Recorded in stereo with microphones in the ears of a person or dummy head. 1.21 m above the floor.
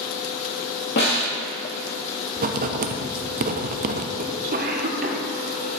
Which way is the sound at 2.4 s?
40° right (ahead or behind).